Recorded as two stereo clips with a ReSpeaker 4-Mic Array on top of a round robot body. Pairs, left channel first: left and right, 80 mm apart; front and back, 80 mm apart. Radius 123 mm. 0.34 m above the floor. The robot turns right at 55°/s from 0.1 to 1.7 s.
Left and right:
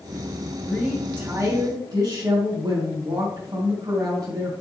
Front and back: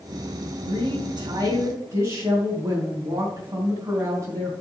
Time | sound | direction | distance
0.7 | a woman speaking | 165° left | 3.5 m